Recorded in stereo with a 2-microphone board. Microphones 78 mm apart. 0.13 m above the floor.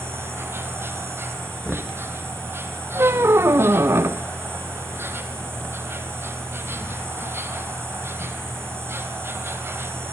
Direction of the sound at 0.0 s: 30° right (ahead or behind).